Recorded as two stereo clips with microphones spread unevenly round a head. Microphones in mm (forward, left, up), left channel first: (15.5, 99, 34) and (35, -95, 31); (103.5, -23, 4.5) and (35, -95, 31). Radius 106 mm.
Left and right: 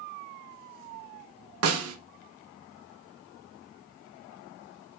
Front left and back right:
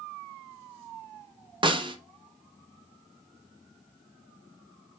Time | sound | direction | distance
1.6 | a snare drum | 90° right | 0.5 m